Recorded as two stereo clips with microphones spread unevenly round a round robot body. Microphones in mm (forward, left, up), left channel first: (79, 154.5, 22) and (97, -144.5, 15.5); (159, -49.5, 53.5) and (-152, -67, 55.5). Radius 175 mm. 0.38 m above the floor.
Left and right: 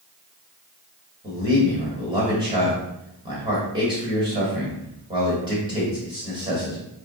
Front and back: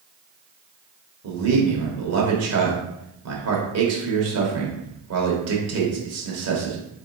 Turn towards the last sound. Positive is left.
turn(degrees=-160)